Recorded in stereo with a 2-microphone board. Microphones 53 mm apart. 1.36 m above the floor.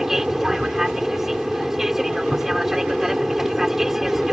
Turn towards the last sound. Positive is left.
turn(degrees=-5)  # may be behind; listen again after turning